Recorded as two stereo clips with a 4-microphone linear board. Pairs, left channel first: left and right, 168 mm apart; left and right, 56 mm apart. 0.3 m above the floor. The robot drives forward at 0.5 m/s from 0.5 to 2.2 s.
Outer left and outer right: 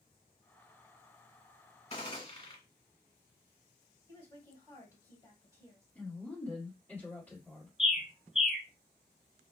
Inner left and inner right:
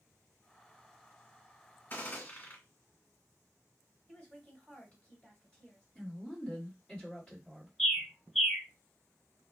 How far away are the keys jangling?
I don't hear keys jangling.